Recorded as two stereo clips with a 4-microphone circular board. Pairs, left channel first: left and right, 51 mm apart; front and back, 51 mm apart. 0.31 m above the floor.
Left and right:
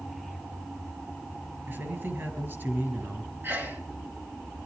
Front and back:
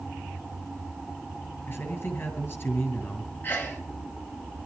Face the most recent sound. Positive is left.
turn(degrees=-50)